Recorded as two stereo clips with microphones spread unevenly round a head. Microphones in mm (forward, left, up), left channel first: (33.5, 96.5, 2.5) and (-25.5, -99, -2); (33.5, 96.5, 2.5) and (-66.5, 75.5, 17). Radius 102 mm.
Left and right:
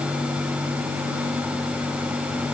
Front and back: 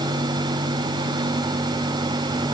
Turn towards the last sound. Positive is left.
No sound to turn to.